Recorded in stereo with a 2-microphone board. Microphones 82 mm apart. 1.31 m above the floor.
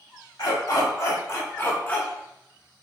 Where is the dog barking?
50° left (ahead or behind), 1.3 m; by 2.8 s 15° right (ahead or behind), 0.8 m.